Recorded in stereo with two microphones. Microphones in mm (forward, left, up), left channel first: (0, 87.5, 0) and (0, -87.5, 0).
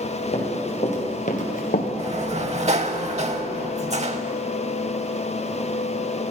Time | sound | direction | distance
0.3 | running footsteps | 40° left (ahead or behind) | 3.5 m
2.0 | a sliding door | 45° right (ahead or behind) | 0.7 m